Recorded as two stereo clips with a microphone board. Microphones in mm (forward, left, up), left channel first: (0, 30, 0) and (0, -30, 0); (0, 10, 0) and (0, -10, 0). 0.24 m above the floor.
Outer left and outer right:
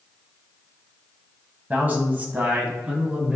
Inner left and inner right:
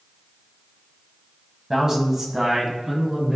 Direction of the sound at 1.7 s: 30° right (ahead or behind).